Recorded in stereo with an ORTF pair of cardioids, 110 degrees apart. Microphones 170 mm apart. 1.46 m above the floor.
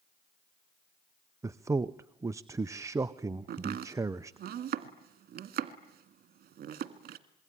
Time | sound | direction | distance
1.4 | a man speaking | 15° right | 0.6 m
3.5 | chopping | 60° right | 1.9 m